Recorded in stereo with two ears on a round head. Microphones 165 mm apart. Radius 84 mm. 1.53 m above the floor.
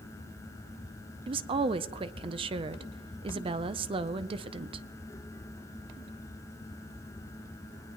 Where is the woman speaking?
30° right (ahead or behind), 0.5 m.